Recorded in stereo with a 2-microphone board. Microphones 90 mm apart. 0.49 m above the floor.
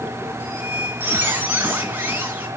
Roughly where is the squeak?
Right.